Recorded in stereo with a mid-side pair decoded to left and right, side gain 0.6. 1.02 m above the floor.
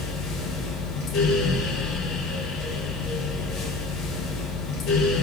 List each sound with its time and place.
0.0 s a fan: 60° left, 2 m